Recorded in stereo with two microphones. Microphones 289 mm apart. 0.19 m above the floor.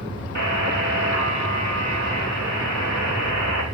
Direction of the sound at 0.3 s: 75° right (ahead or behind).